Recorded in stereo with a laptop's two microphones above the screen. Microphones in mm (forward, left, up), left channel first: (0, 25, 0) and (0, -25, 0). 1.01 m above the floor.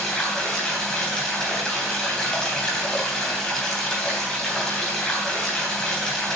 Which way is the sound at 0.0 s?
15° left (ahead or behind).